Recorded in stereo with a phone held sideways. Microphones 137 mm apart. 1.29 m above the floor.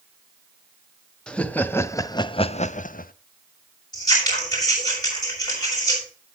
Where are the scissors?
25° left (ahead or behind), 6.5 m.